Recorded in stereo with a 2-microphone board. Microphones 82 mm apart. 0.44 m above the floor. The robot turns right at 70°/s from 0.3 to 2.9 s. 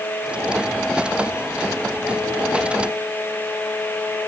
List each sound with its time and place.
Only background noise.